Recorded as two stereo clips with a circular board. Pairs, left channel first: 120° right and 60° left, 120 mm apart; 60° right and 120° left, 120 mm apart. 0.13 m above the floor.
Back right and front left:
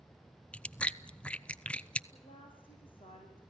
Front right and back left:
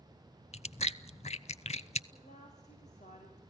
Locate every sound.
0.5 s chewing: 40° right, 0.5 m
2.1 s a woman speaking: 75° right, 8.5 m